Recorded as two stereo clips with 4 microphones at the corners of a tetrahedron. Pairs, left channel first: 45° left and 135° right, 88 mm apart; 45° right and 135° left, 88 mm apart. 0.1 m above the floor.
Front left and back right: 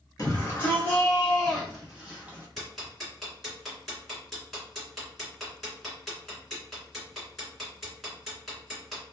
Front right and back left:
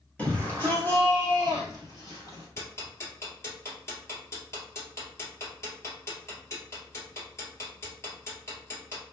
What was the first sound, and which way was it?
A shout, 20° left.